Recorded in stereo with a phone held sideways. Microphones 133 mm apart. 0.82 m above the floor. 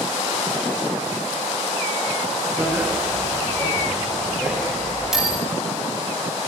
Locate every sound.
2.6 s a bicycle bell: 10° right (ahead or behind), 8 m; by 5.4 s 5° right (ahead or behind), 11.5 m